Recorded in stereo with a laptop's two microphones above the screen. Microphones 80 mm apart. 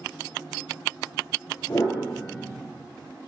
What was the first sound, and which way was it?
A piano, 40° left (ahead or behind).